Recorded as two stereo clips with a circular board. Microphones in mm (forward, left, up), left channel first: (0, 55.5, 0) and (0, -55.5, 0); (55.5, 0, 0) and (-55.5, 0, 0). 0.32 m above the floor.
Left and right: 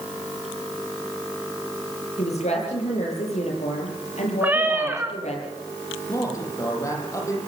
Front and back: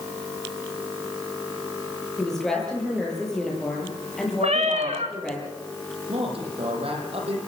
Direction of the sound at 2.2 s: 85° left.